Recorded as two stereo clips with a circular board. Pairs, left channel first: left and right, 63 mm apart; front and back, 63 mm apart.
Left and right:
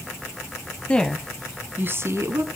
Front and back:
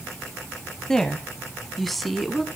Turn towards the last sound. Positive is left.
turn(degrees=-90)